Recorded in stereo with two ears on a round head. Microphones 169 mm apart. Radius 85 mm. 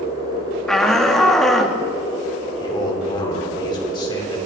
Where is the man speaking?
25° left (ahead or behind), 3 m.